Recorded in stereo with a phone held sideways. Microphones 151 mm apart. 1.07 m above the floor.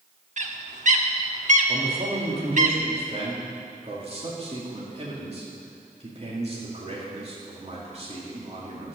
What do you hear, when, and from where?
0.4 s a bird: 55° right (ahead or behind), 1.0 m
1.7 s a man speaking: 40° right (ahead or behind), 2.5 m